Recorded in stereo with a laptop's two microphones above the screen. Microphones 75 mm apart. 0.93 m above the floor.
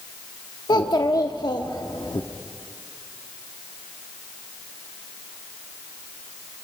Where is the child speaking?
65° left (ahead or behind), 0.8 m.